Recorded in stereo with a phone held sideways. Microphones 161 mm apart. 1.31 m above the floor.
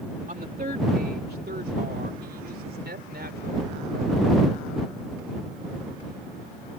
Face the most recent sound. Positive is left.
turn(degrees=-90)